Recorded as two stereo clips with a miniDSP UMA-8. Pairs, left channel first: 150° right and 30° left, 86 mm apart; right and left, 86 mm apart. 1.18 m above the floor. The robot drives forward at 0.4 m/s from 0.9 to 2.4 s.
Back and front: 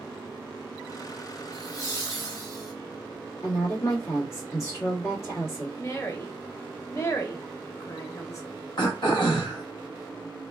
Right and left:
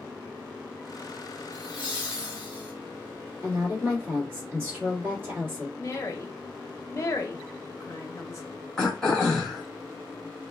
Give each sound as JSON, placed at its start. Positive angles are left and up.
{"t": 1.5, "sound": "laughter", "azimuth_deg": 165, "distance_m": 1.3}
{"t": 3.4, "sound": "a woman speaking", "azimuth_deg": 155, "distance_m": 1.8}
{"t": 5.8, "sound": "a woman speaking", "azimuth_deg": -120, "distance_m": 0.7}
{"t": 8.8, "sound": "throat clearing", "azimuth_deg": -175, "distance_m": 0.9}